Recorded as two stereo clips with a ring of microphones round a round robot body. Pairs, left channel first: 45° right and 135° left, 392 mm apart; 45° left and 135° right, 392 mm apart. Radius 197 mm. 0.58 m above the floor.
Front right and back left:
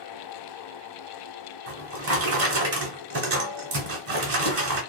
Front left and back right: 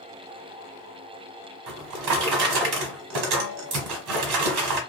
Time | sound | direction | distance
1.7 | a drawer | 170° right | 1.3 m